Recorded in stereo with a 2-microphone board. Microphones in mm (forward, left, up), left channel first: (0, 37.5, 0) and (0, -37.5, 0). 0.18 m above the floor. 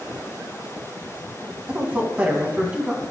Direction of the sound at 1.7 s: 20° right (ahead or behind).